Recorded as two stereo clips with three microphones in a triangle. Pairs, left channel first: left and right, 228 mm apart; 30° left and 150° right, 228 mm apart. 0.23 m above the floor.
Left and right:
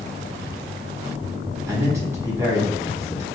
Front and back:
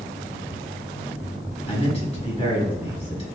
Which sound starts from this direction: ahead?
A man speaking, at 1.7 s.